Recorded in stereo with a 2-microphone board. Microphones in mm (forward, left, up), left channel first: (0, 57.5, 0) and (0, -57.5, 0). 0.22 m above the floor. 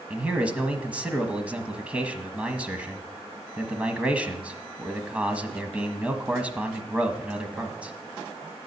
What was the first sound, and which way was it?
A man speaking, 10° right (ahead or behind).